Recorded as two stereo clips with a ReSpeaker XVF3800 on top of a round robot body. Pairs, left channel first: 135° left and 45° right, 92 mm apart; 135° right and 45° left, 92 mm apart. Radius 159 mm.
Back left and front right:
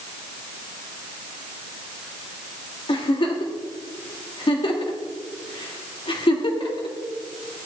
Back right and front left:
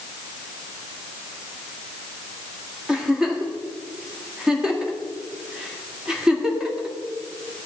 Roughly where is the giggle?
Behind left.